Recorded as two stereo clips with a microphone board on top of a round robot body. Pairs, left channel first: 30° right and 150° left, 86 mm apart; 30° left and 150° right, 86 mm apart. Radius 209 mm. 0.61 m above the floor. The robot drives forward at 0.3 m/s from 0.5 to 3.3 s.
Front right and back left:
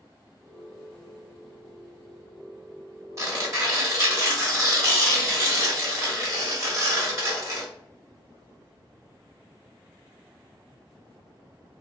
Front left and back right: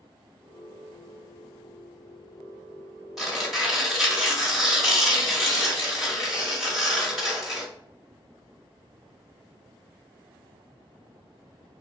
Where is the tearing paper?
125° left, 1.3 m; by 7.7 s 130° left, 1.3 m.